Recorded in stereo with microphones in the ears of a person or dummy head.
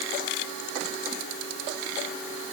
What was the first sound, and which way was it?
Only background noise.